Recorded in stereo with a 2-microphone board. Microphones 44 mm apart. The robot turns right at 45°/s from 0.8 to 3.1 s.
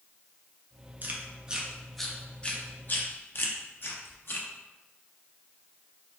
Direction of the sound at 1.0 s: 40° right (ahead or behind).